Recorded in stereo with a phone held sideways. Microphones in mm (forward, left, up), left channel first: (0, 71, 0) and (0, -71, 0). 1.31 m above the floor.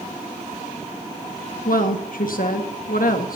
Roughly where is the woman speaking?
Left.